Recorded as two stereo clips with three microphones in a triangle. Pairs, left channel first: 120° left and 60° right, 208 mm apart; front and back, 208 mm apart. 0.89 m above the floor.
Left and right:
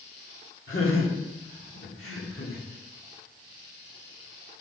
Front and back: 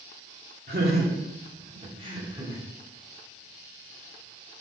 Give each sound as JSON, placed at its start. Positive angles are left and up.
{"t": 0.7, "sound": "laughter", "azimuth_deg": 140, "distance_m": 2.0}